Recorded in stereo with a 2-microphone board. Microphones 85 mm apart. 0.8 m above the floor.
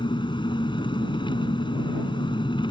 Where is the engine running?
70° left (ahead or behind).